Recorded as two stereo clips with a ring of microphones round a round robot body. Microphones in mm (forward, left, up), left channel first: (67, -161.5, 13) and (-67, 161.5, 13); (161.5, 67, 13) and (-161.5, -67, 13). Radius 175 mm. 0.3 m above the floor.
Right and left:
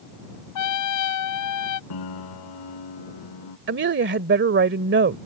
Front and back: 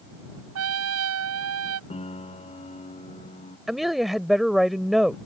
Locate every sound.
0.6 s a trumpet: 105° right
1.9 s a piano: 50° right
3.7 s a woman speaking: 115° left